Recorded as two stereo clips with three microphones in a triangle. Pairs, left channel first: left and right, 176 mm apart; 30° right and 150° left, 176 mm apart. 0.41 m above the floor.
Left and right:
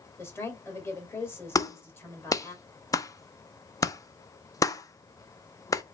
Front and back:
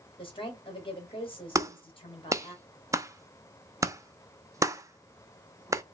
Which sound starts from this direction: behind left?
A clap, at 1.6 s.